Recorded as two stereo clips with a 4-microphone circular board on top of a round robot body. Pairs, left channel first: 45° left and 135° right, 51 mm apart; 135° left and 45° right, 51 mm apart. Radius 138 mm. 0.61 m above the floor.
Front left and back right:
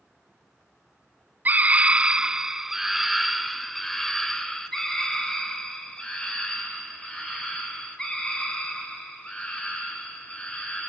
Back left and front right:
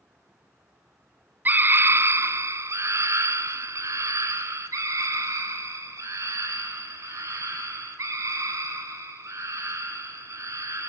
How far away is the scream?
About 1.7 m.